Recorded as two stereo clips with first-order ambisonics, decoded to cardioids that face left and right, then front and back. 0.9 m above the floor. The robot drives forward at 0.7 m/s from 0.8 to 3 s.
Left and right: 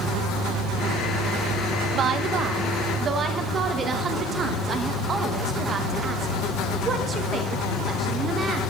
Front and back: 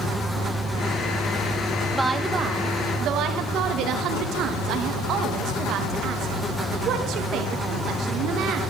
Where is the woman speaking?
100° right, 0.9 m; by 8.6 s 150° right, 1.2 m.